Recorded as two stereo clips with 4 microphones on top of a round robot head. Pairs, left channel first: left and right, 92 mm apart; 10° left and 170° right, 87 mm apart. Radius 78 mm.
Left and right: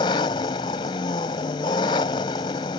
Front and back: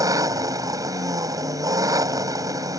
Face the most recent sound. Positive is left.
turn(degrees=140)